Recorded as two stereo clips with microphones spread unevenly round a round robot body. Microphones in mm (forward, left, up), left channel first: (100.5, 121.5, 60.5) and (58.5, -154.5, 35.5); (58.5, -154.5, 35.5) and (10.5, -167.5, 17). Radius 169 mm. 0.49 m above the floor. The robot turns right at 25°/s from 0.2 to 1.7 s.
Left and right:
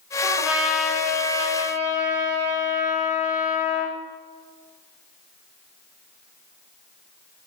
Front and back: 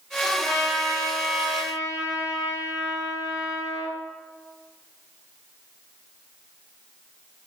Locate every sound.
0.2 s a trumpet: 70° left, 8 m; by 4.0 s 105° left, 8 m